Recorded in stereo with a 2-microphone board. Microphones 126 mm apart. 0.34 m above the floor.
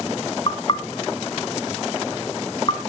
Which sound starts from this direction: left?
Knocking, at 0.5 s.